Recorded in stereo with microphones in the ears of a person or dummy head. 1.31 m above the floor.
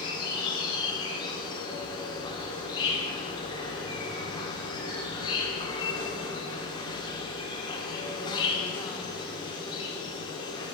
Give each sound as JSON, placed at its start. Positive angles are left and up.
{"t": 0.0, "sound": "an insect", "side_deg": 25, "distance_m": 1.6}